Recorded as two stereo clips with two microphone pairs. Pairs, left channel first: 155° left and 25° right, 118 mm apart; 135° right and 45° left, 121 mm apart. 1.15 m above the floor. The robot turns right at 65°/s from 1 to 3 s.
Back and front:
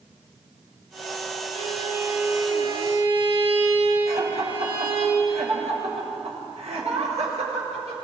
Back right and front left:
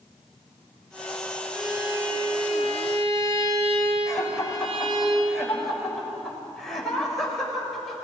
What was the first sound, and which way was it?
A violin, 50° right.